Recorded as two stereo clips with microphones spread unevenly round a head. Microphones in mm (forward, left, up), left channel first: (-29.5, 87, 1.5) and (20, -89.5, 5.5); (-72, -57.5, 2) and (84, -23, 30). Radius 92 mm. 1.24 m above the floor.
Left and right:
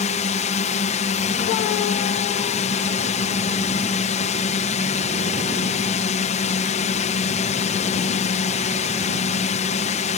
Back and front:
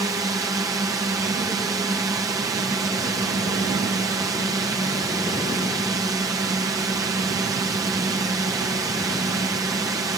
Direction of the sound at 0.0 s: 85° left.